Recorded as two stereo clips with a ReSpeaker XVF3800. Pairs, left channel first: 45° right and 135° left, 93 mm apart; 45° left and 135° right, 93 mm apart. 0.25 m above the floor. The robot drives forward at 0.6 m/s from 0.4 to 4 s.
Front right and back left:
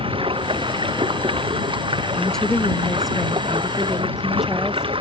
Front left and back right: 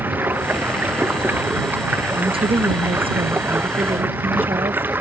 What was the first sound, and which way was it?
Running water, 155° left.